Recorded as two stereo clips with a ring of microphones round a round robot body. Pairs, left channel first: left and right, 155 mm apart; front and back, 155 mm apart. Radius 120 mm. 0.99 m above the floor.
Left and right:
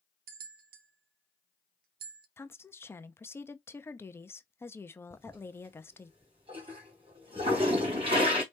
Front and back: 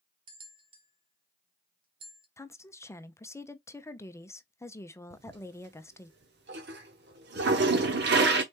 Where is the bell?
115° right, 0.6 m.